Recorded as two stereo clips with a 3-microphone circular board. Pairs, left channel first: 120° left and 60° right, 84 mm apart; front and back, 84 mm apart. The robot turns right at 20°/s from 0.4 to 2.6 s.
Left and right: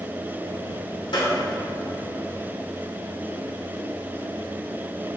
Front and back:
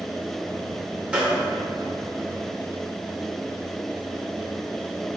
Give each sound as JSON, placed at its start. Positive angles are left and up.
{"t": 1.1, "sound": "a gunshot", "azimuth_deg": 105, "distance_m": 2.0}